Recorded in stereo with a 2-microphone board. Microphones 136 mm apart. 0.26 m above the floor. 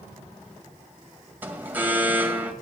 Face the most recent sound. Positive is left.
turn(degrees=-15)  # may be behind; listen again after turning